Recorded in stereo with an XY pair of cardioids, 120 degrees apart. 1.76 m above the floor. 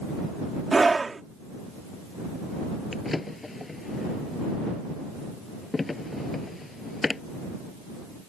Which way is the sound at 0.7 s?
20° right.